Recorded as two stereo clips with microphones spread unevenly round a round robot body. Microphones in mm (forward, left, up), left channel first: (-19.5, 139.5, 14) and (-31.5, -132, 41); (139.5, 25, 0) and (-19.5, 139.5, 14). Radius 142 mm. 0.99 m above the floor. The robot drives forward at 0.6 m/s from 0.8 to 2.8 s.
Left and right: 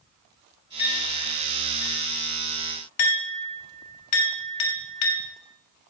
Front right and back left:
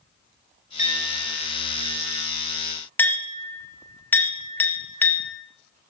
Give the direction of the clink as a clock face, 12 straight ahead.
11 o'clock.